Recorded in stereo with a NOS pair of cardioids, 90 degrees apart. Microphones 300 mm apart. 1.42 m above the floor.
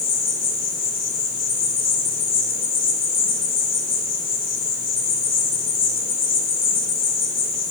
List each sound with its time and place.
0.0 s an insect: 65° left, 3.5 m